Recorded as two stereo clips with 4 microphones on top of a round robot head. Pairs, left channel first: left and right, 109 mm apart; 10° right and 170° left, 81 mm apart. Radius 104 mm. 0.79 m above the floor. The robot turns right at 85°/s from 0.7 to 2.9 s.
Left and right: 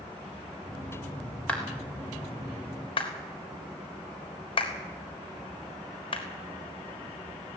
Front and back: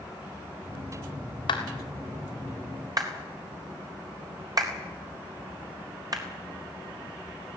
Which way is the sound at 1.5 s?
10° left.